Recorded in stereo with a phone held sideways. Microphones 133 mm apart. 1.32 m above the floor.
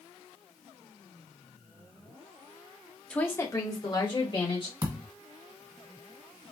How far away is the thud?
About 1.3 m.